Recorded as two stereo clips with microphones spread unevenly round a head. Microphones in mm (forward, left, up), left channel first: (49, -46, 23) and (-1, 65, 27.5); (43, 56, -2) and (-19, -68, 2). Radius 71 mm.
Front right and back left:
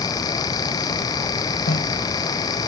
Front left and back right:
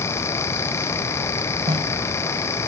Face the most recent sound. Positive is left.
turn(degrees=-65)